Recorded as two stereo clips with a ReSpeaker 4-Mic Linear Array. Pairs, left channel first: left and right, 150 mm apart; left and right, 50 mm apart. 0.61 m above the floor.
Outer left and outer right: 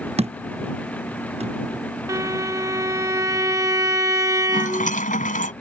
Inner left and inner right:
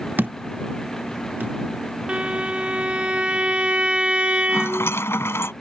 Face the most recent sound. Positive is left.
turn(degrees=65)  # may be behind; listen again after turning